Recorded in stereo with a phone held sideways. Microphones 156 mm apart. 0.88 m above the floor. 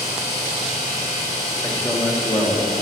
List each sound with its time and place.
0.0 s a machine running: 45° left (ahead or behind), 3 m
1.6 s a man speaking: 10° left (ahead or behind), 1.2 m